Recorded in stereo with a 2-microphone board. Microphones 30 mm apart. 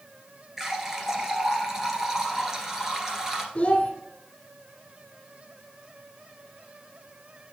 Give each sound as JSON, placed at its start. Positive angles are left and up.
{"t": 0.6, "sound": "a running tap", "side_deg": -15, "distance_m": 1.5}
{"t": 3.5, "sound": "a child speaking", "side_deg": 40, "distance_m": 1.3}